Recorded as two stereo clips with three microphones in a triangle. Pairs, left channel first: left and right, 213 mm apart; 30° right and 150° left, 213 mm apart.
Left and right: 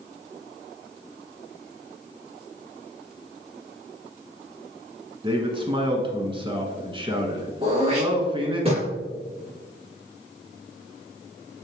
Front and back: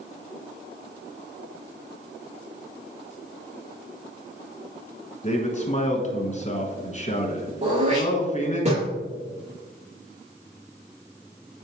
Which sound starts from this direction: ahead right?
A man speaking, at 5.2 s.